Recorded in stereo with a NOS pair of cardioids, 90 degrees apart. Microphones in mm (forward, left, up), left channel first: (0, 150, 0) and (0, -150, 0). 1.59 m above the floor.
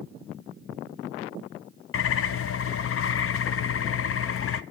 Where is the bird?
45° left, 0.7 m.